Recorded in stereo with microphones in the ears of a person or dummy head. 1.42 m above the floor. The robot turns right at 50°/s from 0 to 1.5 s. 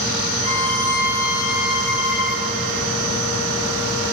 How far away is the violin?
About 5 m.